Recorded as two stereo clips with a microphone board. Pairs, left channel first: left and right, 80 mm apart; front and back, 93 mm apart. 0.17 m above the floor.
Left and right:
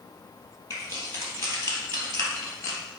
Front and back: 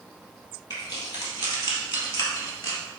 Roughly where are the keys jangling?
Ahead left.